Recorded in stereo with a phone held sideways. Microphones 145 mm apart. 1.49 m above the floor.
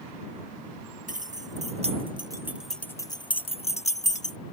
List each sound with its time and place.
1.1 s keys jangling: 65° right (ahead or behind); by 4.4 s 60° left (ahead or behind)